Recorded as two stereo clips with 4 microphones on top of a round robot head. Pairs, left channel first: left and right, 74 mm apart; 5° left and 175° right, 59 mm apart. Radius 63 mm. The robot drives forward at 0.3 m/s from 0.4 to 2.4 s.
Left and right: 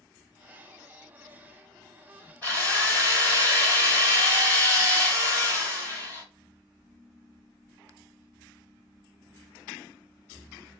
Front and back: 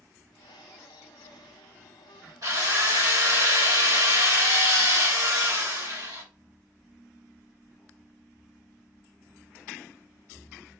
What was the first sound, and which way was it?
A drill, 165° left.